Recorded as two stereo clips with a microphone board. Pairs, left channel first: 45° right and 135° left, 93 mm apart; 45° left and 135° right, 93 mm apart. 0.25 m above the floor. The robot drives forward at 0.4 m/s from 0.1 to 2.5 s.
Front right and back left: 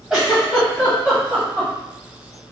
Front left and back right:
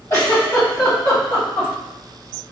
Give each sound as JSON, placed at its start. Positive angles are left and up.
{"t": 0.1, "sound": "a giggle", "azimuth_deg": 55, "distance_m": 1.7}